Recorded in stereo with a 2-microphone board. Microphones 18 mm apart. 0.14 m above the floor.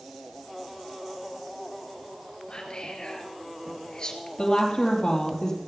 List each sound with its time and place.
2.5 s whispering: 50° left (ahead or behind), 2.5 m
4.4 s a woman speaking: 40° left (ahead or behind), 4.5 m